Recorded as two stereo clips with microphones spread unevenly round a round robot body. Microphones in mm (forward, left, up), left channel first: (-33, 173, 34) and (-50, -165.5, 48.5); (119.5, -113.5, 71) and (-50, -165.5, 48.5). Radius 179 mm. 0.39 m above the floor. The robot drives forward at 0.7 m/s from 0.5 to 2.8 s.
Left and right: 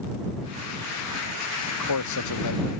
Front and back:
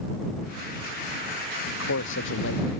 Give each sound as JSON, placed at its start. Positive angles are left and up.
{"t": 1.7, "sound": "a man speaking", "azimuth_deg": 45}